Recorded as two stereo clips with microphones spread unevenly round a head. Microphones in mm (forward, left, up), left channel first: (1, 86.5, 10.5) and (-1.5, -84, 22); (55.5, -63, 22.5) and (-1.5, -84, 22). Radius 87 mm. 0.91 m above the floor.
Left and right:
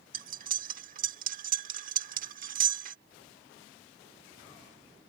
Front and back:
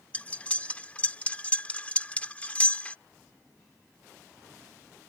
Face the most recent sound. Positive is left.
turn(degrees=-45)